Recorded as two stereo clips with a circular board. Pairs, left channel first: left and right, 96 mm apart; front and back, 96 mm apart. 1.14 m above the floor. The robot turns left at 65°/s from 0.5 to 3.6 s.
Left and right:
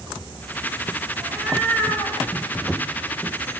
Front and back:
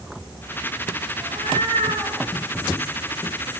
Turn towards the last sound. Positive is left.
turn(degrees=50)